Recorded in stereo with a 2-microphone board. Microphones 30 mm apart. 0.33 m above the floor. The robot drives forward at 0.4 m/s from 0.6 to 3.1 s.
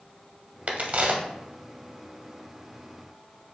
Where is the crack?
60° right (ahead or behind), 0.7 m; by 1.2 s 50° right (ahead or behind), 0.8 m.